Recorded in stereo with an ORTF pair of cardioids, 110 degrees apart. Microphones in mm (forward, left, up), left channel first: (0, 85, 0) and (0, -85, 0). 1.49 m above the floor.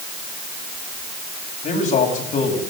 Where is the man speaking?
55° left, 9 m.